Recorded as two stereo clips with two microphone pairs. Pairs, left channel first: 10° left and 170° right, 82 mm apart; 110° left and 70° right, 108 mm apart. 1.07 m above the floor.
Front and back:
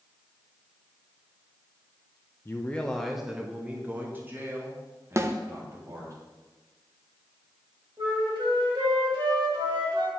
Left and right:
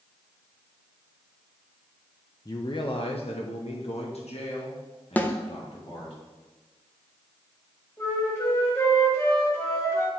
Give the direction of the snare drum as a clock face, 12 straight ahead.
6 o'clock.